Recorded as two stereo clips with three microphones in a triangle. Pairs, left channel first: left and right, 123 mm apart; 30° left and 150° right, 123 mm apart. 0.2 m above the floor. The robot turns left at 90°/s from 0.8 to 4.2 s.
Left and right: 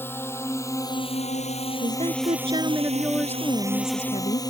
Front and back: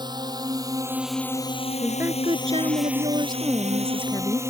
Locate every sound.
0.0 s a drone: 160° left; by 4.5 s 145° left
1.8 s a woman speaking: 65° right; by 4.4 s 80° left